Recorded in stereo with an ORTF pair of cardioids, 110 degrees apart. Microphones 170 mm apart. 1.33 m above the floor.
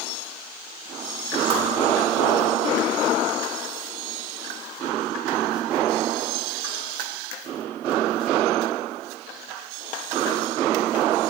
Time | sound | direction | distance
1.5 | a whoosh | 30° right | 1.7 m